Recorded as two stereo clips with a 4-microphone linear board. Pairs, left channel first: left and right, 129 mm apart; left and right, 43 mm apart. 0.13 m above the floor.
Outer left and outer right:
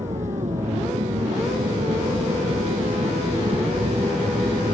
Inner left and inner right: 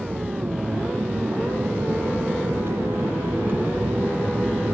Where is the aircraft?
75° right (ahead or behind); by 4.8 s 40° right (ahead or behind).